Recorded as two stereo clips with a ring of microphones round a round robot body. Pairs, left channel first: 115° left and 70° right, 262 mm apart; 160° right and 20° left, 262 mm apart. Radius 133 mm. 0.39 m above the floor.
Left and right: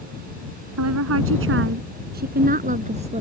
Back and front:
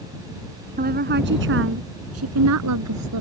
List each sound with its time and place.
0.8 s a woman speaking: 35° right; by 3.2 s straight ahead